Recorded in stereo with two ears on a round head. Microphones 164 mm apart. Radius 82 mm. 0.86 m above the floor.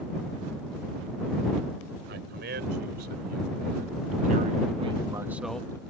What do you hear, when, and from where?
2.1 s a man speaking: 60° right (ahead or behind); by 5.8 s 15° left (ahead or behind)